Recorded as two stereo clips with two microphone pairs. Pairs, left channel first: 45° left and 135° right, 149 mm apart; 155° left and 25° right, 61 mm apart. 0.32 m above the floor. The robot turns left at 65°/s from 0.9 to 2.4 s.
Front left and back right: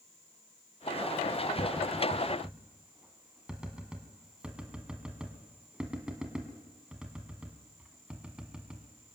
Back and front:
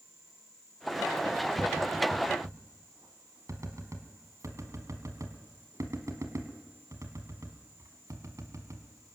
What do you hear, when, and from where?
1.6 s tapping: straight ahead, 1.4 m; by 9.2 s 55° right, 1.4 m